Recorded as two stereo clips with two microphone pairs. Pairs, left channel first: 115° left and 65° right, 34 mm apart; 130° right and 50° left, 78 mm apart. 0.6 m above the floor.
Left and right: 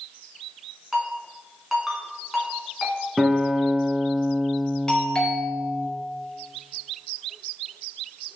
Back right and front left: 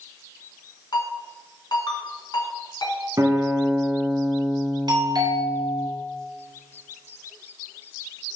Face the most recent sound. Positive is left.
turn(degrees=40)